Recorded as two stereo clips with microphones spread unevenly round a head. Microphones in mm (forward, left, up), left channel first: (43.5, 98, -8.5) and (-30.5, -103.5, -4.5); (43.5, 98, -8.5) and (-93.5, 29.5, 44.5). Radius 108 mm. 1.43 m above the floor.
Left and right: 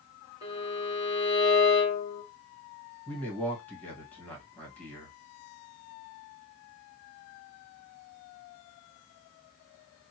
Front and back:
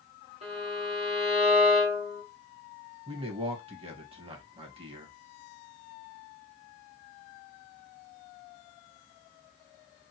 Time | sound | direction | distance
0.4 | a violin | straight behind | 1.4 m
3.1 | a man speaking | 155° left | 1.6 m